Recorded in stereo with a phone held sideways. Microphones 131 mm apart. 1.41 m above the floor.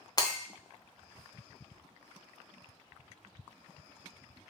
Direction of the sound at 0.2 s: 30° left (ahead or behind).